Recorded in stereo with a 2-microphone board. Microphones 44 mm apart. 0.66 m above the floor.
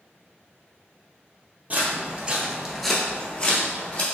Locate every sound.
1.7 s footsteps: 35° right (ahead or behind), 1.0 m; by 4.0 s 35° left (ahead or behind), 1.2 m